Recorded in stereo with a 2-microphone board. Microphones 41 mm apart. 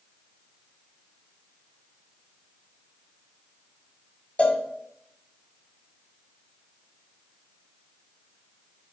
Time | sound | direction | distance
4.4 | a cowbell | 30° left (ahead or behind) | 1.2 m